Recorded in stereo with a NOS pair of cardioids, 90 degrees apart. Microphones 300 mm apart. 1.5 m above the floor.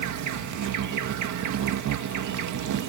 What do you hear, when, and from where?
0.0 s an insect: 65° right